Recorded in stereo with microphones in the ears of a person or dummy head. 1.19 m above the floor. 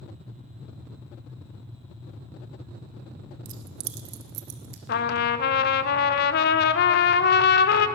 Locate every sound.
3.5 s keys jangling: 45° right (ahead or behind), 0.7 m; by 4.8 s 60° right (ahead or behind), 1.6 m
4.9 s a trumpet: 60° left (ahead or behind), 0.7 m